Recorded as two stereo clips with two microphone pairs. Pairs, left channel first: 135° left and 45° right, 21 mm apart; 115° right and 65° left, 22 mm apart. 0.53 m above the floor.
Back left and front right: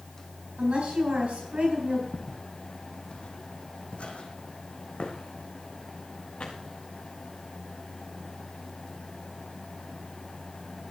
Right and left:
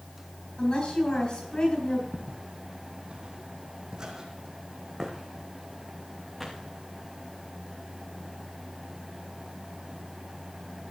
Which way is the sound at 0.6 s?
60° right.